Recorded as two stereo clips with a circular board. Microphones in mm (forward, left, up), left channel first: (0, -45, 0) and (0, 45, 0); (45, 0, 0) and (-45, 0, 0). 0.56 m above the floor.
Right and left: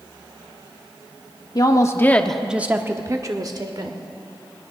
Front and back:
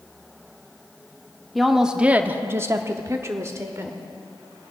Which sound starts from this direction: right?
A woman speaking, at 1.6 s.